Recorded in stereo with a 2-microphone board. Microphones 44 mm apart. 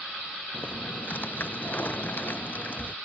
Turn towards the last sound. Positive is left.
turn(degrees=45)  # may be behind; listen again after turning